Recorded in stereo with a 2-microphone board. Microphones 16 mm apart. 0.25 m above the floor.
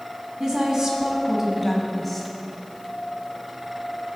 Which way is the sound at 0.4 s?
45° right (ahead or behind).